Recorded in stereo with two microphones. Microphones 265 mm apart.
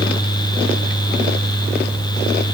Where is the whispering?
I don't hear whispering.